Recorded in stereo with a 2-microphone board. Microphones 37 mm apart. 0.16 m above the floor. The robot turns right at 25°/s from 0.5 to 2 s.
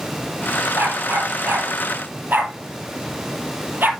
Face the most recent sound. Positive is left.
turn(degrees=-65)  # may be behind; listen again after turning